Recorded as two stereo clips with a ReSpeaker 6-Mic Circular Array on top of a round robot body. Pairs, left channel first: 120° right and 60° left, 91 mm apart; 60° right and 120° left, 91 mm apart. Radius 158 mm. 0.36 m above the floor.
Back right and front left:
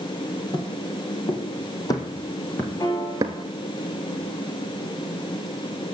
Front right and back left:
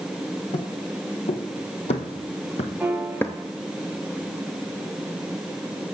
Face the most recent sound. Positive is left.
turn(degrees=-165)